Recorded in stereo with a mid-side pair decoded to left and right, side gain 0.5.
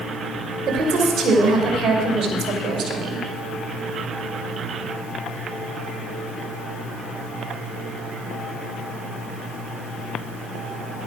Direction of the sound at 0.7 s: 60° right.